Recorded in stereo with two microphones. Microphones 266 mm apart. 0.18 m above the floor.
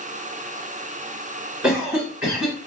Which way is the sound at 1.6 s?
5° right (ahead or behind).